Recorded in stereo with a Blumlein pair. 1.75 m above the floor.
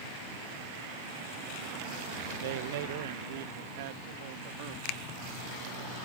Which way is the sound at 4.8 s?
45° left.